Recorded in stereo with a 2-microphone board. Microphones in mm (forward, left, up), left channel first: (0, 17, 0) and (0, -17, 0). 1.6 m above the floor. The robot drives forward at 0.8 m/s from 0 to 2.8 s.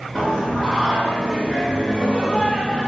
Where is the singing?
15° left (ahead or behind), 1.9 m.